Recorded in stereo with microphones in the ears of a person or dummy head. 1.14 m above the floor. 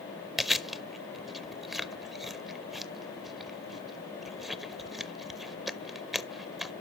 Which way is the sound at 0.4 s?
Centre (ahead or behind).